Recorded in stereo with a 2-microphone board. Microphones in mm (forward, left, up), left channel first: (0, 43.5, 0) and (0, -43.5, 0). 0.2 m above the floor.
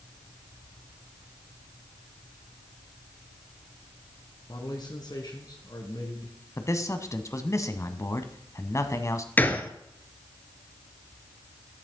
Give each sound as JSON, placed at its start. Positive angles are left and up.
{"t": 4.5, "sound": "a man speaking", "side_deg": 55, "distance_m": 2.0}
{"t": 6.6, "sound": "a man speaking", "side_deg": 35, "distance_m": 1.2}
{"t": 9.4, "sound": "a gunshot", "side_deg": 20, "distance_m": 1.0}